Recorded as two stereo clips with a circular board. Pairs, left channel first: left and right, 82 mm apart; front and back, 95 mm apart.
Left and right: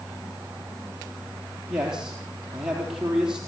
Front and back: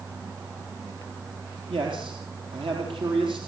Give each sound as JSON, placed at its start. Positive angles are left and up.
{"t": 1.7, "sound": "a man speaking", "azimuth_deg": -170, "distance_m": 4.0}